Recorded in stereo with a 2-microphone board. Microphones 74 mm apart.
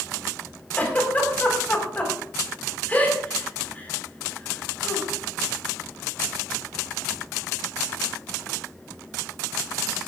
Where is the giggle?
20° left (ahead or behind), 4.5 m.